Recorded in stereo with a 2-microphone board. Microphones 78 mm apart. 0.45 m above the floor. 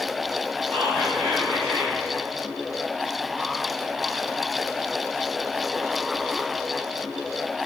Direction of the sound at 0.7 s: 25° left (ahead or behind).